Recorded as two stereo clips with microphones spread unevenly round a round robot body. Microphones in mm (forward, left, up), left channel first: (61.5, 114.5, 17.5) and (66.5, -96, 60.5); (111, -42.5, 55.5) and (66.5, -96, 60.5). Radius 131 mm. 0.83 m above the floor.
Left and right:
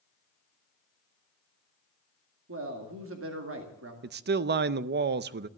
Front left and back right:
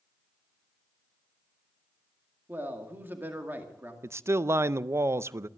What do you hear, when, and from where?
2.5 s a man speaking: 70° right, 2.5 m
4.0 s a man speaking: 100° right, 0.5 m